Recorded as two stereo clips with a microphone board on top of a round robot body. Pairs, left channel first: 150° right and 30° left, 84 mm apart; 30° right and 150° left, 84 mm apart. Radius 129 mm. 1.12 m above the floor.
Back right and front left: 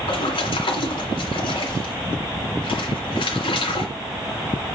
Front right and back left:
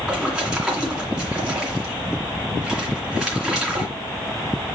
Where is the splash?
125° right, 2.5 m.